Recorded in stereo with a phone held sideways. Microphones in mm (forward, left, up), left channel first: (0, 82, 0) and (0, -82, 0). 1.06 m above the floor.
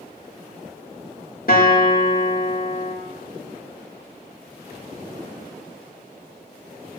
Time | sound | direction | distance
1.5 | a guitar | 65° left (ahead or behind) | 1.7 m